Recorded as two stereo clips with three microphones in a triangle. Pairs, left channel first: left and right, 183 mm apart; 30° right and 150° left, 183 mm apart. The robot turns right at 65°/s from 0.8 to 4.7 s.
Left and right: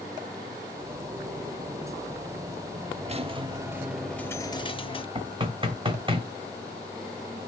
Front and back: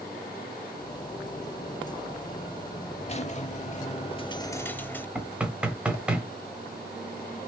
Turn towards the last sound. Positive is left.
turn(degrees=-130)